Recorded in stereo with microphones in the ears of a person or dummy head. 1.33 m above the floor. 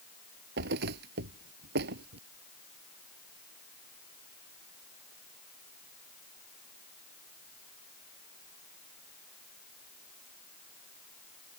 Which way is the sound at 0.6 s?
65° right (ahead or behind).